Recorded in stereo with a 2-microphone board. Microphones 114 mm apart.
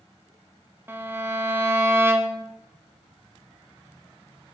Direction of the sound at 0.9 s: 20° right (ahead or behind).